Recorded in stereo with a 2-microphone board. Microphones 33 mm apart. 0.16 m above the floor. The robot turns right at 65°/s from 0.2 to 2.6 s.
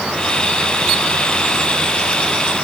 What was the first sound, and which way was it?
Only background noise.